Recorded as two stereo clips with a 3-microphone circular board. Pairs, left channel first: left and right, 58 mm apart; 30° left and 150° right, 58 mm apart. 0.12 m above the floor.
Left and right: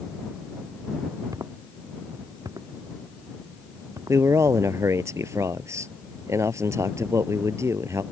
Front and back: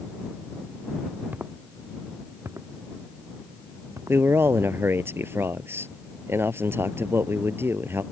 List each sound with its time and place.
1.3 s footsteps: 90° right; by 4.2 s 115° right
4.1 s a man speaking: 110° right